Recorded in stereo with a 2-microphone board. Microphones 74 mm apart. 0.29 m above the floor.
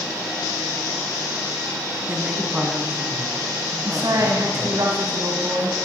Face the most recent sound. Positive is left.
turn(degrees=-55)  # may be behind; listen again after turning